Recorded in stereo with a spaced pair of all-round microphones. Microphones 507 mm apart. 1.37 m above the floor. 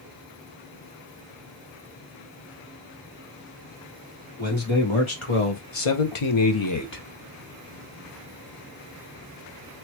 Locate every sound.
4.4 s a man speaking: 60° left (ahead or behind), 1.9 m; by 7.0 s 20° left (ahead or behind), 0.8 m